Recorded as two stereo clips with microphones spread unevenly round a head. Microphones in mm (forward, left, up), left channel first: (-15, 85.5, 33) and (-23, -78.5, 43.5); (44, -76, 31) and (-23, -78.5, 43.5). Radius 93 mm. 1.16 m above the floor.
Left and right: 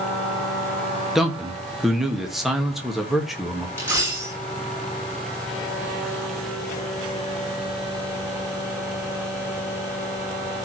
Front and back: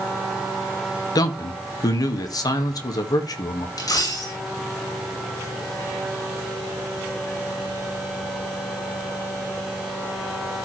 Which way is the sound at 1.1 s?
5° right.